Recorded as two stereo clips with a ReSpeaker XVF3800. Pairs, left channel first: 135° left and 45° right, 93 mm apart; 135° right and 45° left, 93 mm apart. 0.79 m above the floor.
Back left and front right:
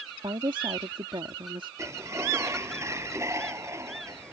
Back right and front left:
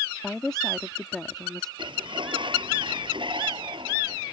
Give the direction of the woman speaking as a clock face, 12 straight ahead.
2 o'clock.